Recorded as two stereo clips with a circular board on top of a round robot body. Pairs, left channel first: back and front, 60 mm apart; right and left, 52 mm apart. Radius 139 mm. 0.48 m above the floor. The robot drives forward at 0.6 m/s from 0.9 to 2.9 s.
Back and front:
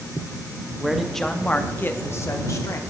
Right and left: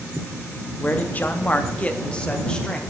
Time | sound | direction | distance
0.8 | a man speaking | 80° right | 0.8 m